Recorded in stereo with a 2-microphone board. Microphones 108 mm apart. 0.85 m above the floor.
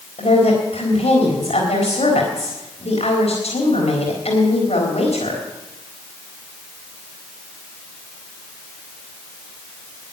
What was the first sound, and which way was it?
A woman speaking, 80° left.